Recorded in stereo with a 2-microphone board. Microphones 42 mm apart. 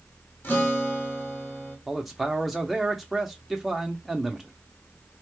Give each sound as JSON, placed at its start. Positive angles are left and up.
{"t": 0.4, "sound": "a guitar", "side_deg": 40, "distance_m": 1.9}
{"t": 1.9, "sound": "a man speaking", "side_deg": -5, "distance_m": 0.7}